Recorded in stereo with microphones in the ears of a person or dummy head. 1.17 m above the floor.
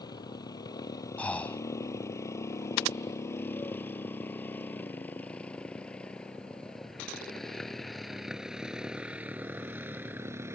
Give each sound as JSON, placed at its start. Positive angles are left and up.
{"t": 0.0, "sound": "a motorcycle", "side_deg": 25}
{"t": 1.2, "sound": "breathing", "side_deg": 10}